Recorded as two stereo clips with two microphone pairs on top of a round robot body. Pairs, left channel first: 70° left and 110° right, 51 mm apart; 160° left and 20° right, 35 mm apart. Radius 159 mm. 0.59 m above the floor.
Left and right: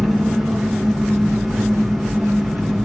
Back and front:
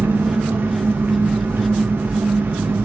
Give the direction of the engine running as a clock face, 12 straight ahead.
12 o'clock.